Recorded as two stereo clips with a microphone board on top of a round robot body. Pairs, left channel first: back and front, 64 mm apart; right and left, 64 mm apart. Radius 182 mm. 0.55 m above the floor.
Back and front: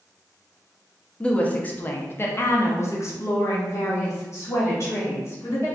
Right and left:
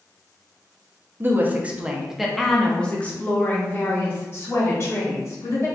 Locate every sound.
1.2 s a woman speaking: 115° left, 1.1 m; by 5.7 s 135° right, 2.5 m